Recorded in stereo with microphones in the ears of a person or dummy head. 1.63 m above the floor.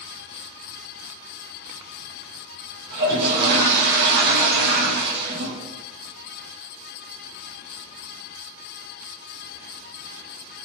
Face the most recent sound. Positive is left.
turn(degrees=-50)  # may be behind; listen again after turning